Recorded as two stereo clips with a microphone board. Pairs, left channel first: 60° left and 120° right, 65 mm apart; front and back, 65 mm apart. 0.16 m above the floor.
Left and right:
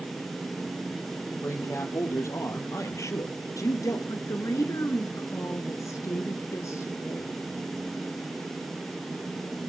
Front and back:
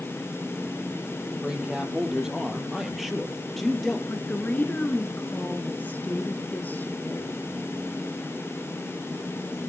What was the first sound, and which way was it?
A man speaking, 100° left.